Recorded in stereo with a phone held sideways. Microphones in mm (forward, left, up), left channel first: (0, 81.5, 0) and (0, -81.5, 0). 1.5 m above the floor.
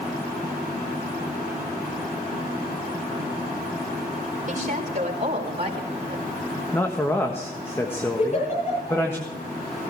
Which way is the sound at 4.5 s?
50° right (ahead or behind).